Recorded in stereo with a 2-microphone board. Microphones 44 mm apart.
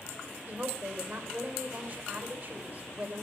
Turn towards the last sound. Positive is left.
turn(degrees=-45)  # may be behind; listen again after turning